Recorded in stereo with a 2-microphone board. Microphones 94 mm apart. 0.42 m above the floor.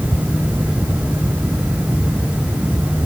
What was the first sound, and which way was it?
Only background noise.